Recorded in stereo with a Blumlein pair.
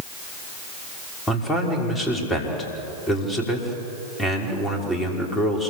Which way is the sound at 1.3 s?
15° left.